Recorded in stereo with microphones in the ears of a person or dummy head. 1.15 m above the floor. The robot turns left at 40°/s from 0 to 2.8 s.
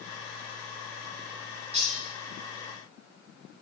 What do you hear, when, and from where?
1.7 s cutlery clinking: 35° right (ahead or behind), 1.4 m; by 1.9 s 25° right (ahead or behind), 1.4 m